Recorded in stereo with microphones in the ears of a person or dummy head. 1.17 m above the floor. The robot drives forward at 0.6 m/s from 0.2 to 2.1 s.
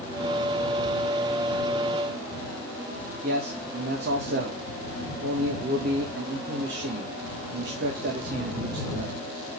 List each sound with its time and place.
3.2 s a man speaking: 50° right (ahead or behind), 1.6 m